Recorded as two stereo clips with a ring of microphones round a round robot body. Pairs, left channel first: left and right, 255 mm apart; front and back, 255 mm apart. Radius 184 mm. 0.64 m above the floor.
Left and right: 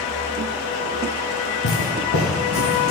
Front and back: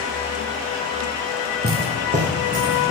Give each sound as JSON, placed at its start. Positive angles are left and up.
{"t": 1.6, "sound": "footsteps", "azimuth_deg": 130, "distance_m": 1.6}